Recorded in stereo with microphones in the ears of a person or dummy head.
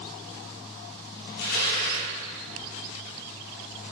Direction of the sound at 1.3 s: 60° left (ahead or behind).